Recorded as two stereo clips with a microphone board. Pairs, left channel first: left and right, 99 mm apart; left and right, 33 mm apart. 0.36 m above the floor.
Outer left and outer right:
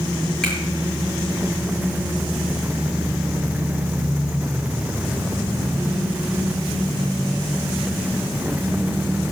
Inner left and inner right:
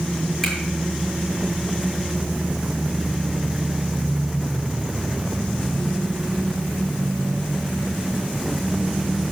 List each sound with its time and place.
0.4 s a finger snap: 5° left (ahead or behind), 7 m